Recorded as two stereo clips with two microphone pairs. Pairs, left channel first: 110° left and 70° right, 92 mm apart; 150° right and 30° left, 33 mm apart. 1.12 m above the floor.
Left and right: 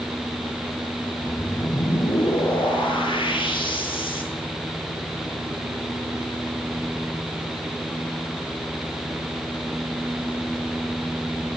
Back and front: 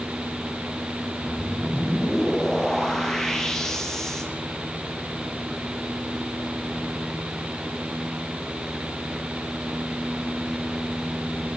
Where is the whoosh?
130° left, 8 m.